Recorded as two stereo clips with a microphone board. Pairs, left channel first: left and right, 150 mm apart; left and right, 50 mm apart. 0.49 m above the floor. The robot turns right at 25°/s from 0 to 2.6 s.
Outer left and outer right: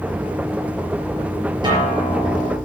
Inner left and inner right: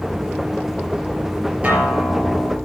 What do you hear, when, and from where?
1.6 s a guitar: 30° right (ahead or behind), 4.5 m; by 2.6 s 55° right (ahead or behind), 4.5 m